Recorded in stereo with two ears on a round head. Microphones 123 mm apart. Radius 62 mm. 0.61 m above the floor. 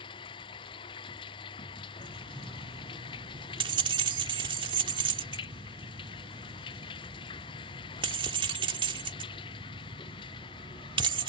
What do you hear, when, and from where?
0.0 s running water: 35° left (ahead or behind)
2.0 s keys jangling: 35° right (ahead or behind)